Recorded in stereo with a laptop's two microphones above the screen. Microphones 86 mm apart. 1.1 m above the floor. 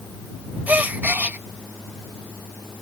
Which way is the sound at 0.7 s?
20° right (ahead or behind).